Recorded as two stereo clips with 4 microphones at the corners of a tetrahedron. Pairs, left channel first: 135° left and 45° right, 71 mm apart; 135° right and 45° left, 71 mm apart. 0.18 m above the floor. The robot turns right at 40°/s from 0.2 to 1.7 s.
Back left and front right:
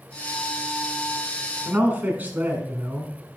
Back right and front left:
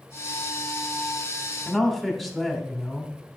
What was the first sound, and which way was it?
A man speaking, 50° right.